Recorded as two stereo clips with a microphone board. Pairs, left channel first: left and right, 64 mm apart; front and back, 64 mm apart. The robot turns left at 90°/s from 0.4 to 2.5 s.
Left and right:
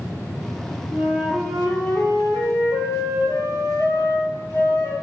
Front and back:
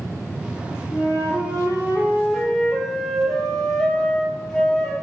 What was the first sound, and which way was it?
A flute, 135° right.